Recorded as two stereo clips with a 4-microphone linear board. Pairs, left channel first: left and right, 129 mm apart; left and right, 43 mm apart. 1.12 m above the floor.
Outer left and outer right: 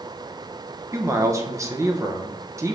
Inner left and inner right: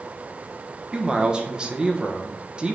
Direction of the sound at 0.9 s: 25° right (ahead or behind).